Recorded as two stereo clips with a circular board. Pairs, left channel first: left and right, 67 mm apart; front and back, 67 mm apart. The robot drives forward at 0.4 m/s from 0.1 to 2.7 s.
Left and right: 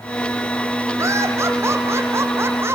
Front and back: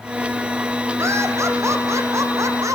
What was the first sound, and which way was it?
Laughter, 135° right.